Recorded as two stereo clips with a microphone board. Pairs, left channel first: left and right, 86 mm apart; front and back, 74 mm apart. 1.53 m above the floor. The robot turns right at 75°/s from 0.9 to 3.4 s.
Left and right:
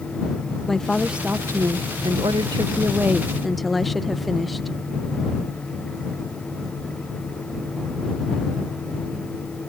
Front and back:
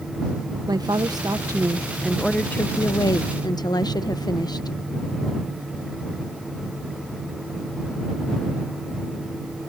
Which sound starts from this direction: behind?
A woman speaking, at 0.7 s.